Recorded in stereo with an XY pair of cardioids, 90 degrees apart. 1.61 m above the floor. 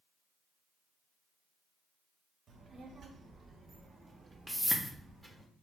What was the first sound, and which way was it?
A child speaking, 60° right.